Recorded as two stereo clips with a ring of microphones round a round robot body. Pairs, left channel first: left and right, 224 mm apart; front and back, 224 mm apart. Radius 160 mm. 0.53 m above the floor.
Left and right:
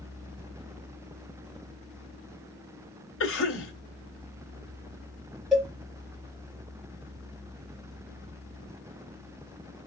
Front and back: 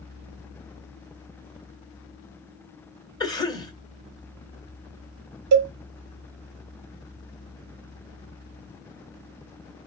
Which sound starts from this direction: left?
A cough, at 3.2 s.